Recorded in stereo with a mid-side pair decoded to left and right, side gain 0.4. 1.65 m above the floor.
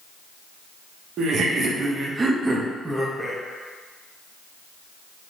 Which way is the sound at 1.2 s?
70° right.